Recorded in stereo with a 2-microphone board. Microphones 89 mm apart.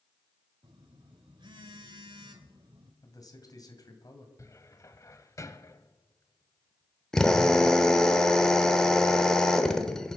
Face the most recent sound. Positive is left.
turn(degrees=5)  # may be behind; listen again after turning